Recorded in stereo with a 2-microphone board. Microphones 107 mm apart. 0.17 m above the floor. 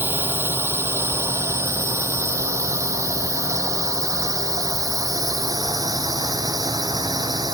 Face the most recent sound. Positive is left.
turn(degrees=-40)  # may be behind; listen again after turning